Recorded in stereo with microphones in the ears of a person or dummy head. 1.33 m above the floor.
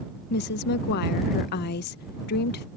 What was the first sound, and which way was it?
A woman speaking, 60° left (ahead or behind).